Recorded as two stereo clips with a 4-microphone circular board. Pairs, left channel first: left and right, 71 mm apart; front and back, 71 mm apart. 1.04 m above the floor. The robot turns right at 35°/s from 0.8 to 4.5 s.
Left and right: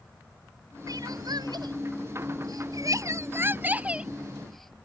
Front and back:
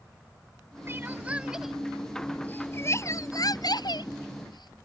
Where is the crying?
120° right; by 4.8 s 5° left.